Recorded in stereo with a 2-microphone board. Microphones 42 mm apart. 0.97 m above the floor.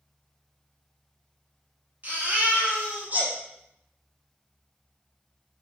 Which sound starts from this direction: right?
A baby crying, at 2.0 s.